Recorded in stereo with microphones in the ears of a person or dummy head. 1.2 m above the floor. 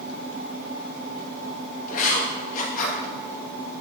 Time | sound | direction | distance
1.9 | writing | 45° left (ahead or behind) | 1.3 m